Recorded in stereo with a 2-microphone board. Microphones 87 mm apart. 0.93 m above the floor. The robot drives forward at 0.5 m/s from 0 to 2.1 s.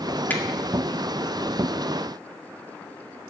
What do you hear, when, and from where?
0.3 s a finger snap: 20° left (ahead or behind), 2 m